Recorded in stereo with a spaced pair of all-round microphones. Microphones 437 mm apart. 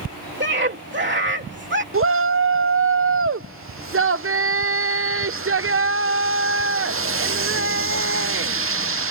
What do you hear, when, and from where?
0.4 s a scream: 25° right (ahead or behind)
1.9 s a shout: 30° right (ahead or behind)